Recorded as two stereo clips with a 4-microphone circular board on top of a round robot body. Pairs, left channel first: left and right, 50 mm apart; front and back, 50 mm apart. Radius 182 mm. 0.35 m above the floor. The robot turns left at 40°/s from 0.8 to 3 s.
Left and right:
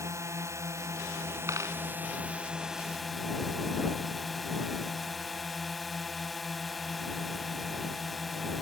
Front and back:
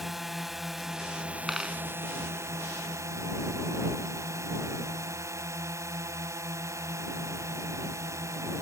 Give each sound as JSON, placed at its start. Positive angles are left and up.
{"t": 0.0, "sound": "a drone", "azimuth_deg": -95}
{"t": 1.5, "sound": "a dropped coin", "azimuth_deg": -95}